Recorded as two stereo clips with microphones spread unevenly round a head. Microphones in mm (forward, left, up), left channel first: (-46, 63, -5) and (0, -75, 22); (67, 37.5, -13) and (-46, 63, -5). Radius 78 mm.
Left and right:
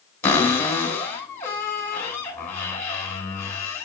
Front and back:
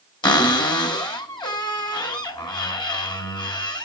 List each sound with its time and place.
0.2 s a cupboard door: 35° left, 2.5 m